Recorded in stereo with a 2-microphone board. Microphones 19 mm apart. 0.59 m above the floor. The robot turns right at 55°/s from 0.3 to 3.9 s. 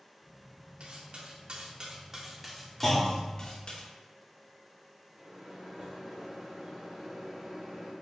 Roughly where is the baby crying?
I don't hear a baby crying.